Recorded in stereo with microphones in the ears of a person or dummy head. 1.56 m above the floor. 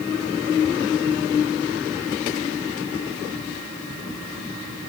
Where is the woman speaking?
No woman speaking in this recording.